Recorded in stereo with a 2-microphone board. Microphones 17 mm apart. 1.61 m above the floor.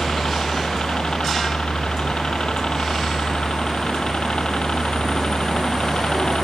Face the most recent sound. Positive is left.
turn(degrees=60)  # may be behind; listen again after turning